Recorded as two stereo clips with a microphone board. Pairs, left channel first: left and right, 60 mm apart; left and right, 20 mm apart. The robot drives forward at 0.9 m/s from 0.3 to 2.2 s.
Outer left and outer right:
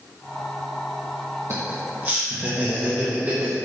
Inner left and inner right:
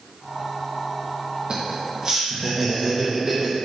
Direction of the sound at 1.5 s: 50° right (ahead or behind).